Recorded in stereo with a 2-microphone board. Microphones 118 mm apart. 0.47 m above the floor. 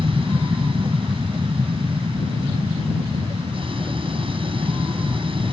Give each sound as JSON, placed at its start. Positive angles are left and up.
{"t": 0.0, "sound": "an aircraft", "side_deg": -45}